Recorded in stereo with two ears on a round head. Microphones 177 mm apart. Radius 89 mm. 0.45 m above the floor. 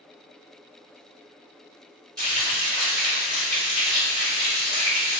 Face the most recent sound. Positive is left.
turn(degrees=-20)  # may be behind; listen again after turning